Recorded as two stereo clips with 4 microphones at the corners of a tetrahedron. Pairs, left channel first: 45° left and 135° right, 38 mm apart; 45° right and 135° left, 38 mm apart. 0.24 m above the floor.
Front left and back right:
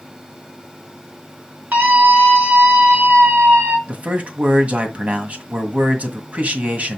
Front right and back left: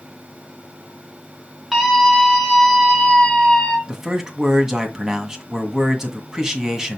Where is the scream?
140° right, 3 m; by 3.8 s 120° right, 3.5 m.